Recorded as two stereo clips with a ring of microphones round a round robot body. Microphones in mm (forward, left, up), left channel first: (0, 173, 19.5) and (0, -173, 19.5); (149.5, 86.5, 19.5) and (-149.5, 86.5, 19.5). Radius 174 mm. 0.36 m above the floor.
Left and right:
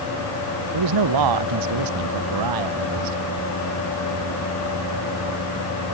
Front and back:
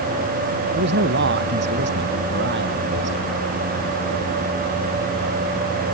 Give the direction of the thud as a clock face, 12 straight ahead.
I don't hear a thud.